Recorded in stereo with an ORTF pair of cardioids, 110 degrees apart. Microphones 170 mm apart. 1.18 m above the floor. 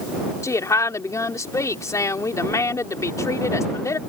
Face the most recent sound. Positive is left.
turn(degrees=15)